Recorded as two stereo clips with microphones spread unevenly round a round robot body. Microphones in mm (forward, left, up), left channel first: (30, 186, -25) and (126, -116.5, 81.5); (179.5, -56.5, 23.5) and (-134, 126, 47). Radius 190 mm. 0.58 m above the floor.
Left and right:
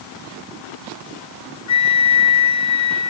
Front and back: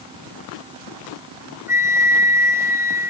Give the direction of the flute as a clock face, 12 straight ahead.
10 o'clock.